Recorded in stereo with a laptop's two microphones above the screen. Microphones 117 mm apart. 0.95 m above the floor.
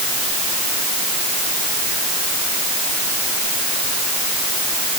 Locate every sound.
Only background noise.